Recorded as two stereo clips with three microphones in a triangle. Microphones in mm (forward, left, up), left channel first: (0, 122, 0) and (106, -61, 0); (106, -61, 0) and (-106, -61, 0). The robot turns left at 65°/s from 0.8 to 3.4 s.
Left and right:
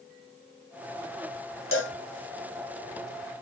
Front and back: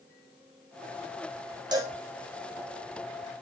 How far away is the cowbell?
About 2.5 m.